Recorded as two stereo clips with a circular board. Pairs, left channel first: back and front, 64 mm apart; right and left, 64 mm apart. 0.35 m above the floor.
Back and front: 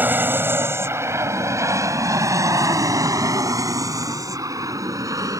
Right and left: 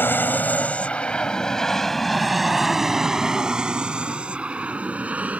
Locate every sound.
0.0 s an aircraft: 45° right; by 5.4 s 20° left